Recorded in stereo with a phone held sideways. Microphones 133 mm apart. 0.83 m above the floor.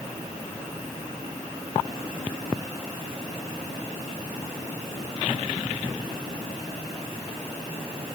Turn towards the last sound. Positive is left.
No sound to turn to.